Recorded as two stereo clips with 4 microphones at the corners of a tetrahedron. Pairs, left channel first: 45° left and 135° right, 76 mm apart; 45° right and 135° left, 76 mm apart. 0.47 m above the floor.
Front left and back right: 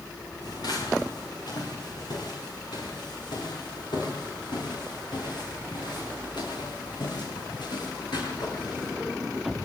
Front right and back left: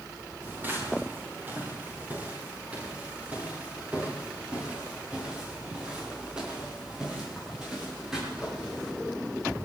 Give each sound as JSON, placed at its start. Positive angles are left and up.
{"t": 0.4, "sound": "footsteps", "azimuth_deg": 70, "distance_m": 8.0}